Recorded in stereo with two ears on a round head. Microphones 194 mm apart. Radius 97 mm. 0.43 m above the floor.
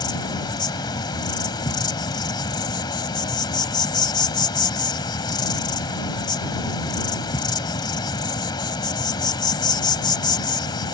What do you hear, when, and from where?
0.0 s an insect: 20° left (ahead or behind)